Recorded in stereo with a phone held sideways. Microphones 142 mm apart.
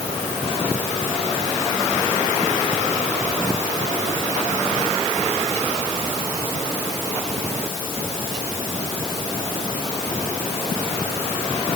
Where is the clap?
I don't hear a clap.